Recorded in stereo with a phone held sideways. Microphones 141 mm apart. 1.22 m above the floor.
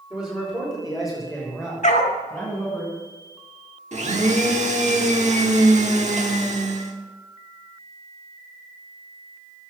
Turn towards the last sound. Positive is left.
turn(degrees=-55)  # may be behind; listen again after turning